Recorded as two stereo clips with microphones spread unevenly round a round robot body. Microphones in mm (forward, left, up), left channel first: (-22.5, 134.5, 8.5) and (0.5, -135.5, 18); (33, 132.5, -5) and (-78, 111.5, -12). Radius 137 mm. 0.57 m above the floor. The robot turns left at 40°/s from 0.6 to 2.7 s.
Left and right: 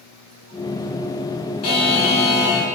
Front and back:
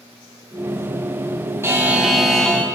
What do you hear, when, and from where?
1.6 s a buzzer: 125° left, 2.5 m; by 2.7 s 85° left, 2.5 m